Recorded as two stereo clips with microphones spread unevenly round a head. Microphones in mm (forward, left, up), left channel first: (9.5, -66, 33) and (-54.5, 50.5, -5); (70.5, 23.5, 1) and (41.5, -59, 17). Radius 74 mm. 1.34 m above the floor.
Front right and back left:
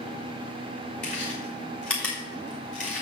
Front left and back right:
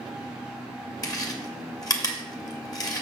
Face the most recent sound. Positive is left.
turn(degrees=25)